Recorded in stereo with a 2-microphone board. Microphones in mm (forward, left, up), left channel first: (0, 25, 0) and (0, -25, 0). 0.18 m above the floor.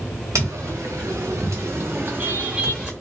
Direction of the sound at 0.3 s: 85° right.